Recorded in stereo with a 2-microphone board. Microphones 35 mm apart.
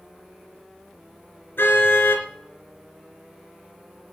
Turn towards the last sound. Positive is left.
turn(degrees=80)